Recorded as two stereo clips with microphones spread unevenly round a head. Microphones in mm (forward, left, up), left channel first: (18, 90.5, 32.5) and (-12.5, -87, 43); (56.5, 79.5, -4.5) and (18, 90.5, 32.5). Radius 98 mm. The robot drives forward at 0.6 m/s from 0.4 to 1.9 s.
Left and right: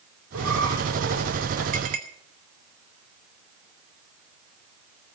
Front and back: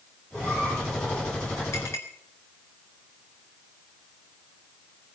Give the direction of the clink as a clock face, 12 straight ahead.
2 o'clock.